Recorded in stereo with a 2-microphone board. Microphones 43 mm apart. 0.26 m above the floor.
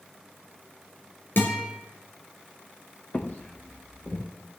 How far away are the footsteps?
About 2 m.